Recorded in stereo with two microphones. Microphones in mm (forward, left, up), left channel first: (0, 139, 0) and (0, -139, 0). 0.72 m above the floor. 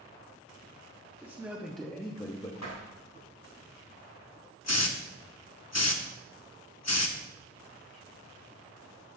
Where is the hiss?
65° left (ahead or behind), 0.7 m.